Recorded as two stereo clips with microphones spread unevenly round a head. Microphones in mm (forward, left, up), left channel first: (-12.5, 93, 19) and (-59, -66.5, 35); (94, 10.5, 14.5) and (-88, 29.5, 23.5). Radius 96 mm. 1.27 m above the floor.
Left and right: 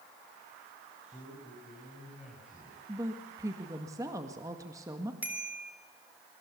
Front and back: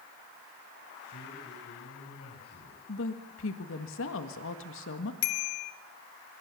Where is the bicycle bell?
25° right, 2.5 m.